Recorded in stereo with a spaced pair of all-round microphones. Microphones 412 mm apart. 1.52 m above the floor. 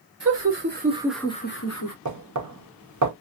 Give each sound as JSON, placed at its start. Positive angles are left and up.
{"t": 0.2, "sound": "laughter", "side_deg": -40, "distance_m": 1.1}
{"t": 2.0, "sound": "knocking", "side_deg": -45, "distance_m": 0.6}